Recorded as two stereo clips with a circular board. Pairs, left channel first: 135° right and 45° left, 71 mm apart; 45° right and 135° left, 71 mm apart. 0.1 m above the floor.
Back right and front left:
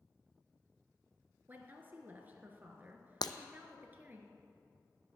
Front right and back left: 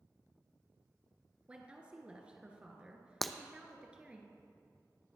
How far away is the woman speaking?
About 1.3 m.